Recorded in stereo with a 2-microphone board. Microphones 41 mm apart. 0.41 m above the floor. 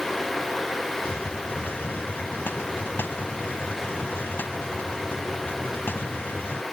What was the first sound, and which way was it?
A hiss, 60° left (ahead or behind).